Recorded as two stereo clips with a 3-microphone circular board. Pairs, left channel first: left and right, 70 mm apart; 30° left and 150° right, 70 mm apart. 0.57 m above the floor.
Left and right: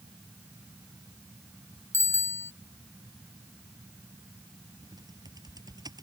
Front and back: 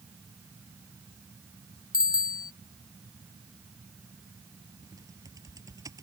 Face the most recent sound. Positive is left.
turn(degrees=-115)